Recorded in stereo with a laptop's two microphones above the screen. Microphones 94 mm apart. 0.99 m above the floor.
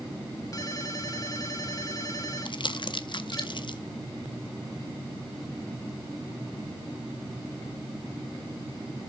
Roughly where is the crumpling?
Left.